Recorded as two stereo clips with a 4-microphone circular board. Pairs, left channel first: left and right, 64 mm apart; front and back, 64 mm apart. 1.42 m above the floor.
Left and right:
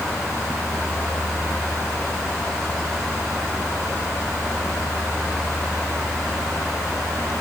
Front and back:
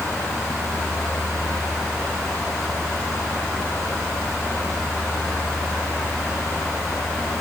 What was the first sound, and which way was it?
Only background noise.